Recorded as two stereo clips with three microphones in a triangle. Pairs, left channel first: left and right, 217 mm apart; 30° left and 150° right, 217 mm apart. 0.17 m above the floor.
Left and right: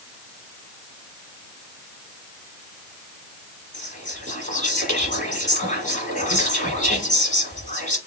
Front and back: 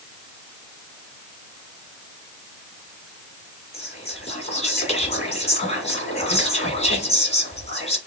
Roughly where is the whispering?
Ahead left.